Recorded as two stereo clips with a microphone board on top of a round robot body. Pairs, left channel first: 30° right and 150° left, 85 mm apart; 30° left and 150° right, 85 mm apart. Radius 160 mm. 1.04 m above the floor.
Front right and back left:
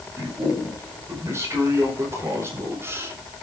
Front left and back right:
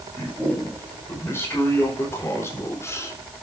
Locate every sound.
0.2 s a man speaking: 90° left, 6 m